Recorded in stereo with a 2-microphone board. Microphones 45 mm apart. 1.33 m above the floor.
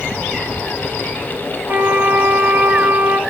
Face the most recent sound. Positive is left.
turn(degrees=-40)  # may be behind; listen again after turning